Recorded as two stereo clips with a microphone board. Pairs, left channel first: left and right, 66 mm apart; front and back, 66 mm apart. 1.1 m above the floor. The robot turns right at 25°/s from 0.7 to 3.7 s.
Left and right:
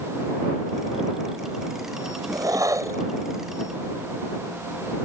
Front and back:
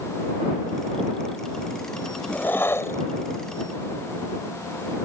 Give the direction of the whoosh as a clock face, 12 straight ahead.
2 o'clock.